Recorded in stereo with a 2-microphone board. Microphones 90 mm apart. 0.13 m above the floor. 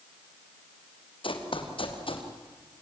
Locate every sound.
1.2 s running footsteps: 80° left, 3.5 m; by 2.3 s 90° left, 5 m